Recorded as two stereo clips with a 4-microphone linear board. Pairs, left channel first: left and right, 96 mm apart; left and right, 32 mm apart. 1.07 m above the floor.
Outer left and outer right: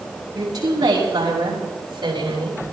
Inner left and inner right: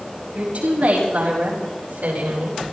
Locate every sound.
0.3 s a woman speaking: 45° right (ahead or behind), 7.5 m; by 2.6 s 60° right (ahead or behind), 7 m